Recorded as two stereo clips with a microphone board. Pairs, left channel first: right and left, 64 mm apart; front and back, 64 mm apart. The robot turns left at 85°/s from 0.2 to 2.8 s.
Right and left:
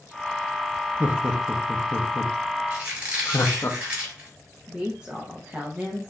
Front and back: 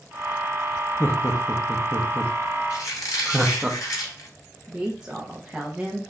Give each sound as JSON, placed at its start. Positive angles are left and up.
{"t": 1.0, "sound": "laughter", "azimuth_deg": 40, "distance_m": 0.7}
{"t": 2.7, "sound": "a squeak", "azimuth_deg": 35, "distance_m": 3.0}
{"t": 4.7, "sound": "a woman speaking", "azimuth_deg": 125, "distance_m": 0.8}